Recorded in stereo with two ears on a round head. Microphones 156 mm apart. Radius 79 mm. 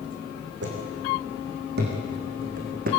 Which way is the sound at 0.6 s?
65° right (ahead or behind).